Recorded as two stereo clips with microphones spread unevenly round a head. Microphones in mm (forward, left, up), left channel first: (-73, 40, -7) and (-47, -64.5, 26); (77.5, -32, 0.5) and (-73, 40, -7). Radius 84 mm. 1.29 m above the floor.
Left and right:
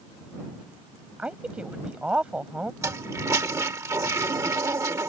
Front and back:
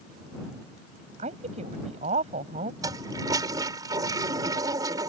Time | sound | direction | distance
1.2 | a woman speaking | 155° right | ?
2.8 | a toilet flushing | 135° right | ?